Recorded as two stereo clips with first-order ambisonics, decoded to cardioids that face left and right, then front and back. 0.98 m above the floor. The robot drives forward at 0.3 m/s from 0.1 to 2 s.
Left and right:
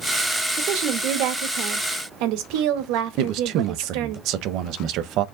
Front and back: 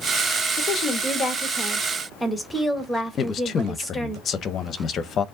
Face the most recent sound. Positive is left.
turn(degrees=-55)